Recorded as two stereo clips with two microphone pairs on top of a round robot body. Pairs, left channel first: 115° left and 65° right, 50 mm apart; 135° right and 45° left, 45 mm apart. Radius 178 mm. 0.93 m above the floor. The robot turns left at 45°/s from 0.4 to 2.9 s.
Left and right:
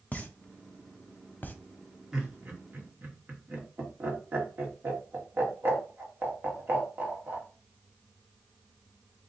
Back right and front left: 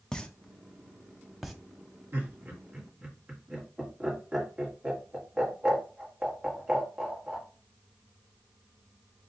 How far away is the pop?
About 0.9 m.